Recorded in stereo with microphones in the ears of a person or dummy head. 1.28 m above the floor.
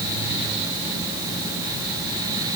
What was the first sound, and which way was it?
Only background noise.